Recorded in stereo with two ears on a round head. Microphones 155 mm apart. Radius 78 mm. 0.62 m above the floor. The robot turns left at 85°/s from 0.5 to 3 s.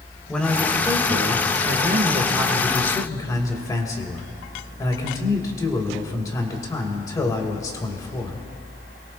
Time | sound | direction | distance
0.3 | a man speaking | 5° left | 2 m